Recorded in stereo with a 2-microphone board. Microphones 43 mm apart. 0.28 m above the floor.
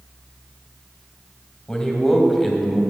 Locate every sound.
1.7 s a man speaking: 15° left (ahead or behind), 1.5 m; by 2.8 s 10° right (ahead or behind), 1.6 m